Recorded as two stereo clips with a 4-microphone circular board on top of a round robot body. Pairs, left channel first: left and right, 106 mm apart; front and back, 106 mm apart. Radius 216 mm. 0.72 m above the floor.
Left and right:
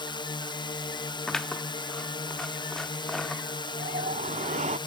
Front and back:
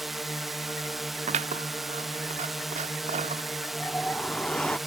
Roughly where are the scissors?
Behind.